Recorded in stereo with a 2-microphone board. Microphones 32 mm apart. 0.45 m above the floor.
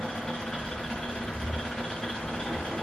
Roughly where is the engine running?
Left.